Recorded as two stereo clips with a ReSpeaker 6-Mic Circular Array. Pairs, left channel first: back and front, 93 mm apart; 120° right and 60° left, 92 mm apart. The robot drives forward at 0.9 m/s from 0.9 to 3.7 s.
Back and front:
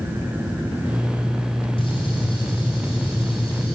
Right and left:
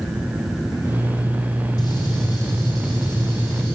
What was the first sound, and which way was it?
A gunshot, 160° right.